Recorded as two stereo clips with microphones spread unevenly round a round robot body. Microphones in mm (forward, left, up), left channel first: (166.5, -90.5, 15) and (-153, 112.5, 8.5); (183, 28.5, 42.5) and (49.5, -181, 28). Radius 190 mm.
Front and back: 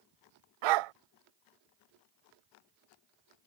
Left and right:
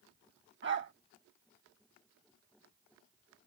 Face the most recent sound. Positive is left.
turn(degrees=175)